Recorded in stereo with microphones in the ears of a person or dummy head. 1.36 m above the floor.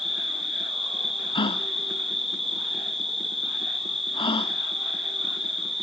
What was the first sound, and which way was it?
An insect, centre (ahead or behind).